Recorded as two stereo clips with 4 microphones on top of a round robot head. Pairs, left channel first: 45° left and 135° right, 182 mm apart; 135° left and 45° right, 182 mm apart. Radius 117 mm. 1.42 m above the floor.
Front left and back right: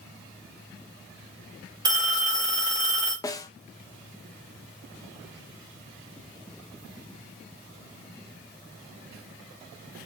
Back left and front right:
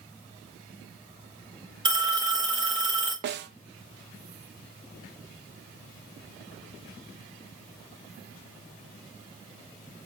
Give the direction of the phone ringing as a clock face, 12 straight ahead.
3 o'clock.